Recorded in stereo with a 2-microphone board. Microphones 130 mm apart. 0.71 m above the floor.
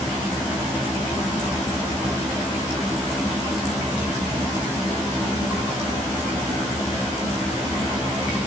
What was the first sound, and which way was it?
Only background noise.